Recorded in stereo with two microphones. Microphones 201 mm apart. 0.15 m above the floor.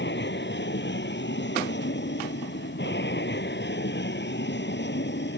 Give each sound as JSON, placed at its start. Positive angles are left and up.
{"t": 0.0, "sound": "an aircraft", "side_deg": 65}